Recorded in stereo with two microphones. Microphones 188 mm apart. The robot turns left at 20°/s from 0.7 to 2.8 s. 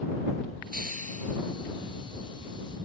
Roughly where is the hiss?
Right.